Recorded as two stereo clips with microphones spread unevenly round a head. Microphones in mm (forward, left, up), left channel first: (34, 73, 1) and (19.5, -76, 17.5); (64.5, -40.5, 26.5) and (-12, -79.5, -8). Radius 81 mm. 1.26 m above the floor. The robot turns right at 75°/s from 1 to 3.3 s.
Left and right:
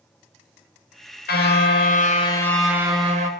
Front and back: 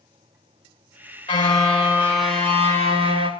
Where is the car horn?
75° left, 3.5 m; by 3.3 s 135° right, 3.5 m.